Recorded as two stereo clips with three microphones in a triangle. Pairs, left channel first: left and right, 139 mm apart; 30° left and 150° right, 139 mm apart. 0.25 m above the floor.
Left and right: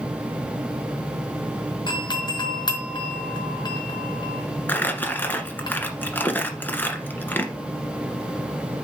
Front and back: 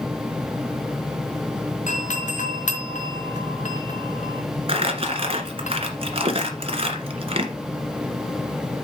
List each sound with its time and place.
1.9 s a doorbell: 35° left, 3.5 m
4.7 s crumpling: 165° left, 1.6 m